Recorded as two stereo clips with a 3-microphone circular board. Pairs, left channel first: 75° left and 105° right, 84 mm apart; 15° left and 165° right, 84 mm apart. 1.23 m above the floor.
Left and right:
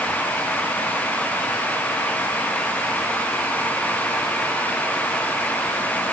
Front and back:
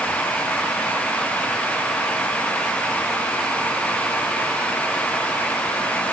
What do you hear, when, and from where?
Only background noise.